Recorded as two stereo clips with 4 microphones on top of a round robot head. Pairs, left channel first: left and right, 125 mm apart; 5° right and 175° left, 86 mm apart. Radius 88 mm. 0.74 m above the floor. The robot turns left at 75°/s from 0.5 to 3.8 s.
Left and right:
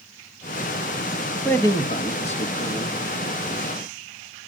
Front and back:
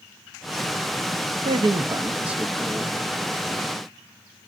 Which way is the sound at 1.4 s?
165° left.